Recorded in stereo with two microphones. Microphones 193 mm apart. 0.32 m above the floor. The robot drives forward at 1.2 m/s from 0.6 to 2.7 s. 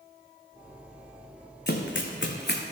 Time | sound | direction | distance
1.7 | running footsteps | 60° left (ahead or behind) | 1.1 m